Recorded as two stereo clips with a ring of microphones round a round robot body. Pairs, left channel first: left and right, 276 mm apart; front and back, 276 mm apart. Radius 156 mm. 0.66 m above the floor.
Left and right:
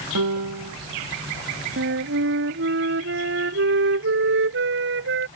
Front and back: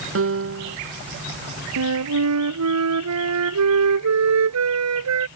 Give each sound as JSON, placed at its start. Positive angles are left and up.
{"t": 0.1, "sound": "a piano", "azimuth_deg": -135}
{"t": 1.8, "sound": "a flute", "azimuth_deg": -145}